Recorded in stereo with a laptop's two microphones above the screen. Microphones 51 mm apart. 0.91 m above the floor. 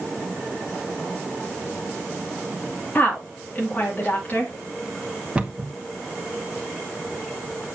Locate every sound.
3.0 s a woman speaking: 35° left (ahead or behind), 2 m
5.3 s a cupboard door: 20° right (ahead or behind), 0.9 m